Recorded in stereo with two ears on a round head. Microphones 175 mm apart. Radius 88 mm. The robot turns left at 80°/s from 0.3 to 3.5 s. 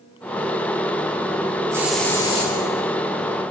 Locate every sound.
1.7 s a hiss: 165° right, 9 m; by 2.5 s 130° left, 9 m